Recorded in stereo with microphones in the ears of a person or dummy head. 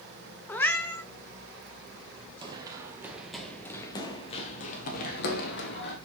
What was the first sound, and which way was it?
A cat meowing, 10° left (ahead or behind).